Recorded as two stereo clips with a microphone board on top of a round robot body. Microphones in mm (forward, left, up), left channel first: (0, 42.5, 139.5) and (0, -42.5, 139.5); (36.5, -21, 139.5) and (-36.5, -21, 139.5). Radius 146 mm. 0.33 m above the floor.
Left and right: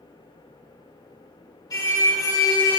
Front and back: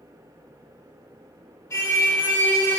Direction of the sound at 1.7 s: 50° left.